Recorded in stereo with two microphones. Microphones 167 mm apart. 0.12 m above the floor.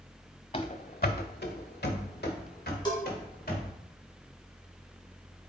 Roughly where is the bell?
Left.